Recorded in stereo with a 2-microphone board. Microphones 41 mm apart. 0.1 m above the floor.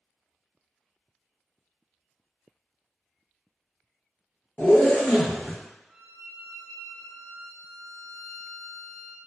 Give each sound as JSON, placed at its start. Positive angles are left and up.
{"t": 4.6, "sound": "a zipper", "side_deg": 50, "distance_m": 0.6}
{"t": 5.9, "sound": "a violin", "side_deg": 50, "distance_m": 1.3}